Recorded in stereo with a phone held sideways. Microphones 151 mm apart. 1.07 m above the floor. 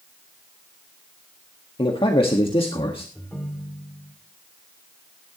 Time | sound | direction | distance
1.8 | a man speaking | 40° left (ahead or behind) | 1.5 m
3.1 | a ringtone | 10° left (ahead or behind) | 2 m